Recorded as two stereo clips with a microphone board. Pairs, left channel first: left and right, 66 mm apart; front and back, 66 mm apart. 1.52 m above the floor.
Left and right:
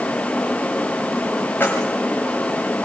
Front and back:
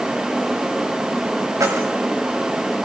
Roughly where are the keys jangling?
Behind left.